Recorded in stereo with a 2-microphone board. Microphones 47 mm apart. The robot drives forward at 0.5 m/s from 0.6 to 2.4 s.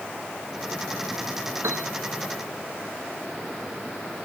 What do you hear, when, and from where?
1.6 s a piano: 75° right (ahead or behind); by 1.9 s 70° right (ahead or behind)